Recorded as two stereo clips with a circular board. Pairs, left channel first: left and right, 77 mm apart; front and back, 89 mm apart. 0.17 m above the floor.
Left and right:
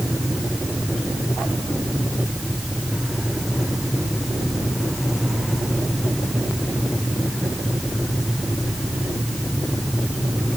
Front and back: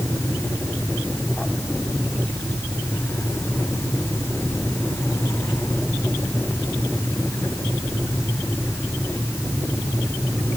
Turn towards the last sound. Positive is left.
No sound to turn to.